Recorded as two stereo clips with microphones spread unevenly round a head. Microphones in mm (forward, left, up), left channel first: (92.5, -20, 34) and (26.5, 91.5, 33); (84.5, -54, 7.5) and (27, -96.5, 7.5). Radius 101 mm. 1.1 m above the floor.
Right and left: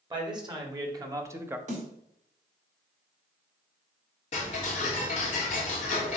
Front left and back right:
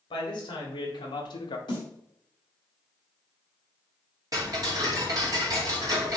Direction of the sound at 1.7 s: 90° left.